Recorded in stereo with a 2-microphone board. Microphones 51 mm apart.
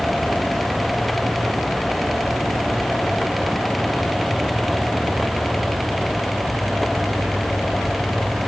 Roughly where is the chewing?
No chewing in this recording.